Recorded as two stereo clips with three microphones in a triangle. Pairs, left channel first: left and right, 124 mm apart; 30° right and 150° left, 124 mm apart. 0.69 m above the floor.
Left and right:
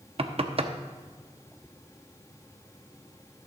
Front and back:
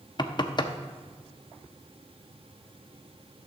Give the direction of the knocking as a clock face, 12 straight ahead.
2 o'clock.